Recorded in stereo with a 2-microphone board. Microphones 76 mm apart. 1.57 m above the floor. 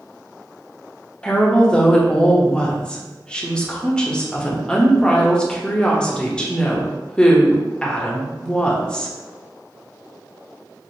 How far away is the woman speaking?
About 0.6 m.